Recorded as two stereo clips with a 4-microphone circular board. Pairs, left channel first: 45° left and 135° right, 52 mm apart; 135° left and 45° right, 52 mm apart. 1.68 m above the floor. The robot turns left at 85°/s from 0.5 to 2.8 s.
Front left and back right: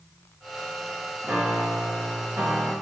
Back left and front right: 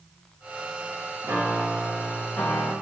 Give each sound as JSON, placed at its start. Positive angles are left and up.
{"t": 1.2, "sound": "a piano", "azimuth_deg": -80, "distance_m": 0.7}